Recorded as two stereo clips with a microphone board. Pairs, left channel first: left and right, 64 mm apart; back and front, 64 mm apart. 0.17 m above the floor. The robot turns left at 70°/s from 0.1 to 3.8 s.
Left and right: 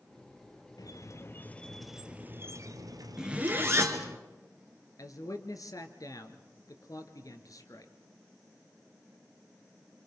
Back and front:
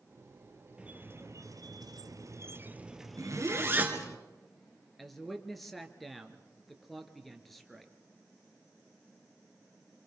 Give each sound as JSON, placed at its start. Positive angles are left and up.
{"t": 0.8, "sound": "a squeak", "azimuth_deg": 75, "distance_m": 1.2}
{"t": 3.2, "sound": "a zipper", "azimuth_deg": -10, "distance_m": 2.5}
{"t": 5.0, "sound": "a man speaking", "azimuth_deg": 90, "distance_m": 2.5}